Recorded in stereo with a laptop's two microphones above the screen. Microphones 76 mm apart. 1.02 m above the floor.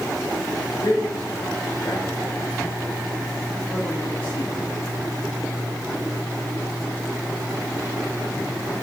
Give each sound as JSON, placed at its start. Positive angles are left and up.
{"t": 0.8, "sound": "a man speaking", "side_deg": 70, "distance_m": 4.0}